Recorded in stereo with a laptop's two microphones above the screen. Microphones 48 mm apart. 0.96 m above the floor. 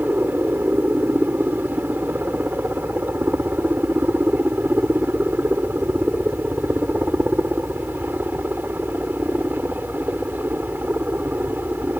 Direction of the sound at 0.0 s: 45° right (ahead or behind).